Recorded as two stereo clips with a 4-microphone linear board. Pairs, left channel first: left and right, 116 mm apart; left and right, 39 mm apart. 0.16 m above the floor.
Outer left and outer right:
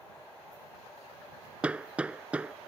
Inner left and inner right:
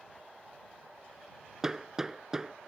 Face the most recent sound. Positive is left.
turn(degrees=-10)  # may be behind; listen again after turning